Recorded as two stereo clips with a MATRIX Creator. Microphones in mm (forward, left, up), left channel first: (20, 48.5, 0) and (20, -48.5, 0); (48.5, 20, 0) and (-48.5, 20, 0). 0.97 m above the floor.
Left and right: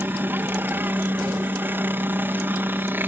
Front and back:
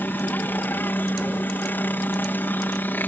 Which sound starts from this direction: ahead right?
A helicopter, at 0.0 s.